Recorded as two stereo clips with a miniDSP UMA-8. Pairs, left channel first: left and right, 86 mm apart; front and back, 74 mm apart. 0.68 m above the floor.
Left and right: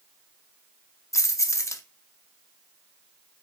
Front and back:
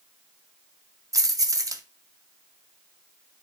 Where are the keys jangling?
145° left, 0.6 m.